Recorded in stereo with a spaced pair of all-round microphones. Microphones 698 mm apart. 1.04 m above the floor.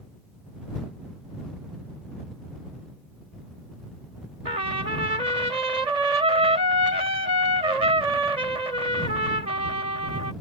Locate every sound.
4.5 s a trumpet: 80° right